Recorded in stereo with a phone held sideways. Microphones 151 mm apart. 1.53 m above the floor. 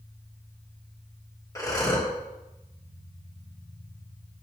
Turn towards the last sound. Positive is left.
turn(degrees=20)  # may be behind; listen again after turning